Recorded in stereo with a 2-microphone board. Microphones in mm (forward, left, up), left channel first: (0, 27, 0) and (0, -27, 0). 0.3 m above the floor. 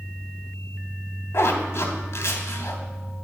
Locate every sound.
1.3 s a zipper: 55° left (ahead or behind), 0.8 m